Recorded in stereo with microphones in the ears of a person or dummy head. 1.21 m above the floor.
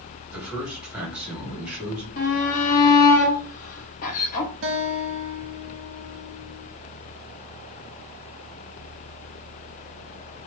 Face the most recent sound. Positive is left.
turn(degrees=-60)  # may be behind; listen again after turning